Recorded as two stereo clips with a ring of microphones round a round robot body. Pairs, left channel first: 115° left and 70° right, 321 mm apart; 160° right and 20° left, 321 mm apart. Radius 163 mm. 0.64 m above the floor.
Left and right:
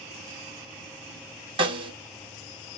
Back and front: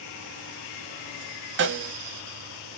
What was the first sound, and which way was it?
A snare drum, straight ahead.